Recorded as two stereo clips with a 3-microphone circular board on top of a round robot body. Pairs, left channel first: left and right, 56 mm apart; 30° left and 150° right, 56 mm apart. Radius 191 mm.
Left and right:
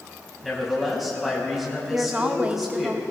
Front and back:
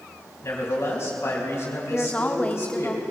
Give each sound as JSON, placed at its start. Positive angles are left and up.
{"t": 0.4, "sound": "a man speaking", "azimuth_deg": -5, "distance_m": 4.5}
{"t": 1.9, "sound": "a woman speaking", "azimuth_deg": -30, "distance_m": 1.1}